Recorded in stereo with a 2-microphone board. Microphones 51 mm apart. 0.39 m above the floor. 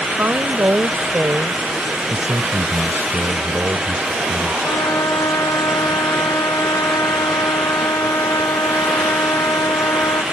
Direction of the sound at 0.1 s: 45° right (ahead or behind).